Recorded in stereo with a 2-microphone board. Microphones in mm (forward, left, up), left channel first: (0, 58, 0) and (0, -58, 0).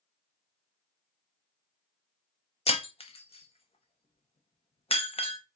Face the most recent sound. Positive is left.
turn(degrees=60)  # may be behind; listen again after turning